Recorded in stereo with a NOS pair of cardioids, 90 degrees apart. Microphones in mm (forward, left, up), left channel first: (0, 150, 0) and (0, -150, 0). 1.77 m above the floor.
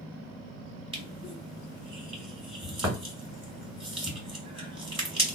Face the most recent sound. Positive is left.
turn(degrees=-20)